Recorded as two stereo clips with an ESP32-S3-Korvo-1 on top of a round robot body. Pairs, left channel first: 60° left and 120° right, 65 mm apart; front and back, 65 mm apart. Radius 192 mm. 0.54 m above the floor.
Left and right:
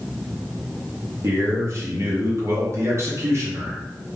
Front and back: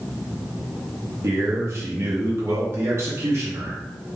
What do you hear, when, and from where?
1.2 s a man speaking: 145° right, 1.0 m